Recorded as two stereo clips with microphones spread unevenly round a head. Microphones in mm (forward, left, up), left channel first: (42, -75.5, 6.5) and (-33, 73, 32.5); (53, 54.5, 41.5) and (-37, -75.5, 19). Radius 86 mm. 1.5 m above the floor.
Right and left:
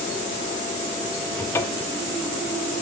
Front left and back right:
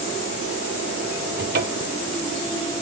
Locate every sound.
1.4 s a cupboard door: 135° right, 0.7 m